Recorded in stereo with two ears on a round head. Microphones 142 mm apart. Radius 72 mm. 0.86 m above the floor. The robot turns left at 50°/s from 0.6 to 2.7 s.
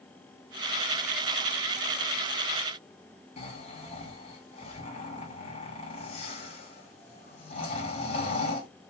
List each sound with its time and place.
3.4 s snoring: 40° left (ahead or behind), 1.7 m